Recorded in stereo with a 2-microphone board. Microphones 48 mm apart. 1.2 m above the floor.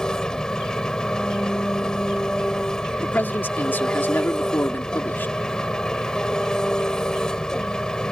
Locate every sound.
0.0 s an engine running: 15° left (ahead or behind)
3.0 s a man speaking: 50° left (ahead or behind)